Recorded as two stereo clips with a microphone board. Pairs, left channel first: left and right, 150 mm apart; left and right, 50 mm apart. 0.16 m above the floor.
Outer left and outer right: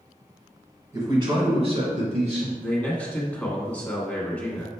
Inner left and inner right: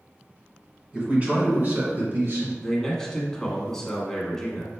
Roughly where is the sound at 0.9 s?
Right.